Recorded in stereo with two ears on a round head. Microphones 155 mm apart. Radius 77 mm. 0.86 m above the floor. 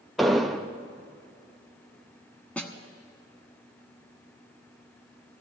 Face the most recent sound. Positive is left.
turn(degrees=10)  # may be behind; listen again after turning